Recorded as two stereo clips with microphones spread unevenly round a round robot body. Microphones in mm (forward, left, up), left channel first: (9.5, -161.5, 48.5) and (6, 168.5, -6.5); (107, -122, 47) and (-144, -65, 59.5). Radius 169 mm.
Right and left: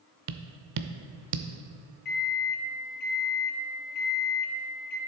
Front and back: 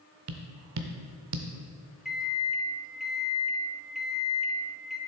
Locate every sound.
0.3 s tapping: 130° left, 0.5 m
2.0 s a microwave: 100° right, 1.0 m